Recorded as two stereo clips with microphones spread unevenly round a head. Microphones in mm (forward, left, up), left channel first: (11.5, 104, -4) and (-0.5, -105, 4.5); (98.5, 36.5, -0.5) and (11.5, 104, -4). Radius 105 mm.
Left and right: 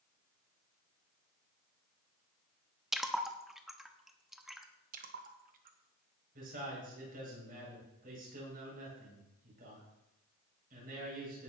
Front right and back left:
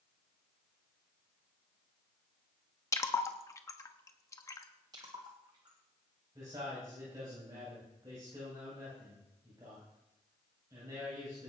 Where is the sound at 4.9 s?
145° right, 1.2 m.